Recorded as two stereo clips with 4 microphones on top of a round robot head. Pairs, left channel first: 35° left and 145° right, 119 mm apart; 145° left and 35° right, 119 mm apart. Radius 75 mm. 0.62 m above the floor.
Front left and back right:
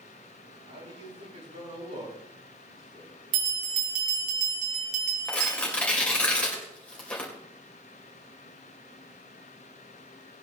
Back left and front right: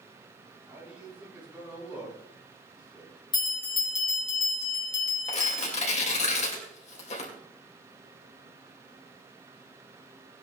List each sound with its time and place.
0.7 s a man speaking: 115° right, 9 m
3.3 s a bell: 165° right, 4.5 m
5.3 s tearing paper: 115° left, 3 m